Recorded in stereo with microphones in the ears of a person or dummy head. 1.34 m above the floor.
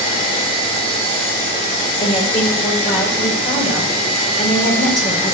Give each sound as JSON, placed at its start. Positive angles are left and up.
{"t": 2.0, "sound": "a woman speaking", "side_deg": 50, "distance_m": 4.5}